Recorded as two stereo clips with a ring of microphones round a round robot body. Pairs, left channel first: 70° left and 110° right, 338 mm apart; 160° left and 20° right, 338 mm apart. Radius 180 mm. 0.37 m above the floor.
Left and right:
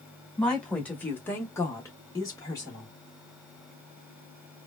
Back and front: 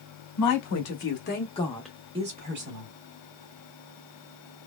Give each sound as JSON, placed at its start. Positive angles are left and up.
{"t": 0.4, "sound": "a woman speaking", "azimuth_deg": 155, "distance_m": 1.3}